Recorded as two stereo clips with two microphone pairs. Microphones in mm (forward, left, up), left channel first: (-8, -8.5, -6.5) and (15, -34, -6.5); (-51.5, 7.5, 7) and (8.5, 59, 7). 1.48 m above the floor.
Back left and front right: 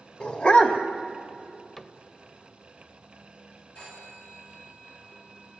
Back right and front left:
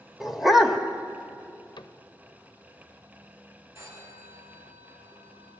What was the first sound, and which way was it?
A dog barking, 125° left.